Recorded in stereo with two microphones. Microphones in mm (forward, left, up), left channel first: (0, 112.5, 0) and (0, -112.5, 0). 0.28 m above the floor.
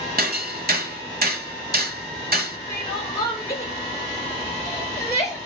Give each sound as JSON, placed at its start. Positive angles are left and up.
{"t": 0.2, "sound": "hammering", "side_deg": -45, "distance_m": 1.1}
{"t": 2.7, "sound": "crying", "side_deg": 15, "distance_m": 5.0}